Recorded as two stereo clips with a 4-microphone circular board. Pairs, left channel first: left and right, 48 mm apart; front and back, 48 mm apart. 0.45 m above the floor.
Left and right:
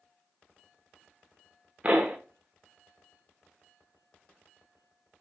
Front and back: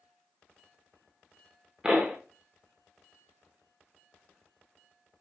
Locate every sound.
1.8 s a pop: 125° right, 0.8 m